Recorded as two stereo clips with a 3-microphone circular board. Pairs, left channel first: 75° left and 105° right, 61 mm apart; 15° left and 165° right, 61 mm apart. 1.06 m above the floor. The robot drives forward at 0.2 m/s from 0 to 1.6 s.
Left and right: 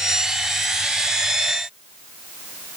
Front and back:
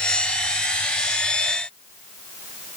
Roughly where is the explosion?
No explosion in this recording.